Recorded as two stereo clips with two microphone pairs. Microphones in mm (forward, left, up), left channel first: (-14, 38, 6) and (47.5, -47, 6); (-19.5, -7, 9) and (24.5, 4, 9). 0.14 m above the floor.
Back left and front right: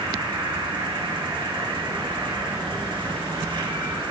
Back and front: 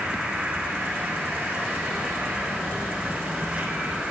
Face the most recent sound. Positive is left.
turn(degrees=-50)